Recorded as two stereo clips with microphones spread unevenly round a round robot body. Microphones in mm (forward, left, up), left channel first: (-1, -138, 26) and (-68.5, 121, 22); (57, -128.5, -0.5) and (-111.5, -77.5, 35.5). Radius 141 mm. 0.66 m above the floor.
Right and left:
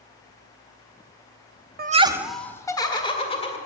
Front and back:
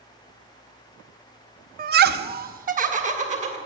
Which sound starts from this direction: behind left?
Laughter, at 1.8 s.